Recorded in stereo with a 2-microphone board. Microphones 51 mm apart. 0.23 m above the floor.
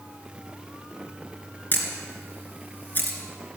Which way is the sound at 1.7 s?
35° left (ahead or behind).